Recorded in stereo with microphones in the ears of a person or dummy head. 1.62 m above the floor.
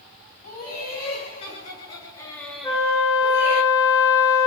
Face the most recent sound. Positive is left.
turn(degrees=30)  # may be behind; listen again after turning